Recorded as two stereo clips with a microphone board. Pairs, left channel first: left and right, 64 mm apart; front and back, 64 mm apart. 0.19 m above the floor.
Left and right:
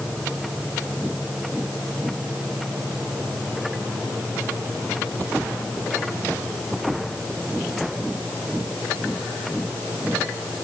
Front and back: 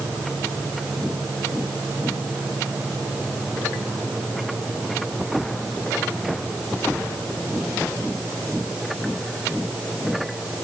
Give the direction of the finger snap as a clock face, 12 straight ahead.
I don't hear a finger snap.